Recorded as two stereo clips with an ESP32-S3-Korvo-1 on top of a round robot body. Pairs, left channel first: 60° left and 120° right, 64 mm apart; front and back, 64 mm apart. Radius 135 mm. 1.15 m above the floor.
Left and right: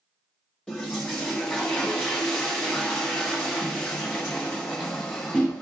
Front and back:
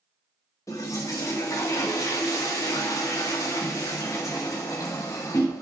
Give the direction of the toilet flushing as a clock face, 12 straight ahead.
1 o'clock.